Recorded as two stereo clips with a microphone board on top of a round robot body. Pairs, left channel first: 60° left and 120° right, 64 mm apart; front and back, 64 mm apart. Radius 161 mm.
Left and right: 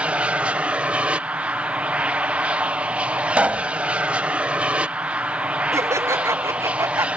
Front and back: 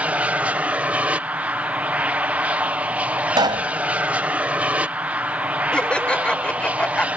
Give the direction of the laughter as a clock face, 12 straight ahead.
2 o'clock.